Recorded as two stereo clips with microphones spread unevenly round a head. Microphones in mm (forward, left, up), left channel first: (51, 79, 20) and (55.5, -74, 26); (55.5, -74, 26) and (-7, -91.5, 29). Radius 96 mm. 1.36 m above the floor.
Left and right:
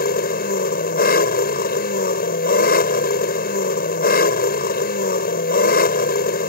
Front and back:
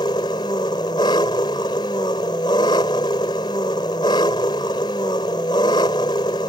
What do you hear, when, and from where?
0.0 s an engine running: 70° left